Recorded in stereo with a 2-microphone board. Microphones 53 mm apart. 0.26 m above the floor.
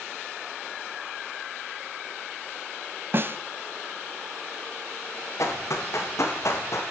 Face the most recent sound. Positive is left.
turn(degrees=65)  # may be behind; listen again after turning